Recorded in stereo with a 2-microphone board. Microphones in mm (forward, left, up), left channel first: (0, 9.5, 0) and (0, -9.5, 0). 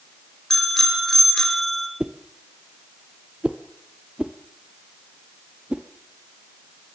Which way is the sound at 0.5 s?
25° left (ahead or behind).